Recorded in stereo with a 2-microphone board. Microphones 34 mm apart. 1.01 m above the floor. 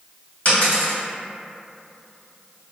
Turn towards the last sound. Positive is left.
turn(degrees=55)  # may be behind; listen again after turning